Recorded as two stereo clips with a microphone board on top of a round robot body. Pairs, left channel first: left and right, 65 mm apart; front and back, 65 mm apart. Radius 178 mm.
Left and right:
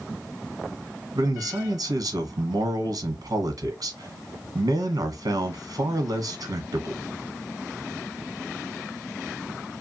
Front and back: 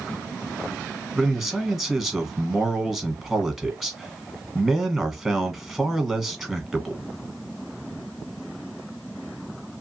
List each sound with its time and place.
1.1 s a man speaking: 90° right, 1.3 m